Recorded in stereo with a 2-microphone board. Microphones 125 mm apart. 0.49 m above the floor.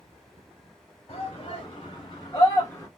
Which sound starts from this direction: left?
A shout, at 1.1 s.